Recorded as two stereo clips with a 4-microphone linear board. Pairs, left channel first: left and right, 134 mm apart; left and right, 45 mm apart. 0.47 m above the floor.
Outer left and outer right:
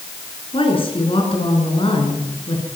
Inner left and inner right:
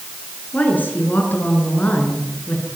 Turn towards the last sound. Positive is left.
turn(degrees=40)  # may be behind; listen again after turning